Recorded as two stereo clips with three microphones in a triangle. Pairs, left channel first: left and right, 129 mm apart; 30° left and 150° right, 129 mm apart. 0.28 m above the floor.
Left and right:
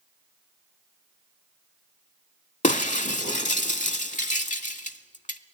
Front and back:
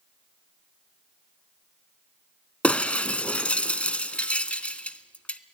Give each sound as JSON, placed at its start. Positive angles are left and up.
{"t": 2.6, "sound": "breaking glass", "azimuth_deg": 110, "distance_m": 0.6}